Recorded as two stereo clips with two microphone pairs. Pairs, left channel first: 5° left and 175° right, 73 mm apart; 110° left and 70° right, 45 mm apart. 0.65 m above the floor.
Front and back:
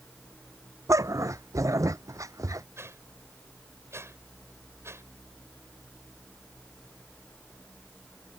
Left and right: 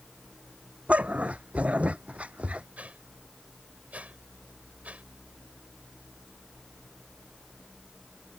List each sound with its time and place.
0.9 s a dog barking: 130° right
2.8 s a whoosh: 125° right